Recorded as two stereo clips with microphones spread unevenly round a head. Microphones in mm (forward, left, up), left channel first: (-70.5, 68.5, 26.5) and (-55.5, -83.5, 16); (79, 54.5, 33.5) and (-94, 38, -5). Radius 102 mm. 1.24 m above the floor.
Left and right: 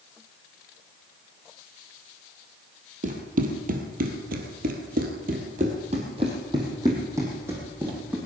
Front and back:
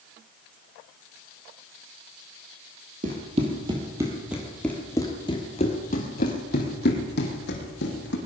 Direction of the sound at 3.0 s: 115° right.